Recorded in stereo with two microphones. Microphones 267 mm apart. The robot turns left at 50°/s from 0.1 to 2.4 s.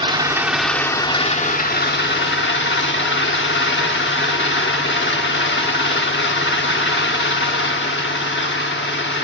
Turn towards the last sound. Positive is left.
turn(degrees=90)